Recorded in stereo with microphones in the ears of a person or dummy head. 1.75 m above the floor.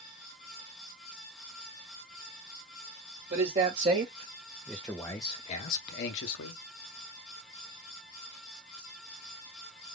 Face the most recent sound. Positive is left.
turn(degrees=70)  # may be behind; listen again after turning